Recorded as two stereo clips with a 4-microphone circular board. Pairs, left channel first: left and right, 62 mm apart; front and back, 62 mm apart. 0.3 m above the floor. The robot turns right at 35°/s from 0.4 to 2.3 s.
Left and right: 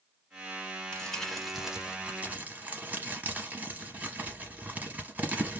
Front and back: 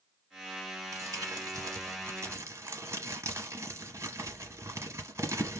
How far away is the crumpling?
About 0.8 m.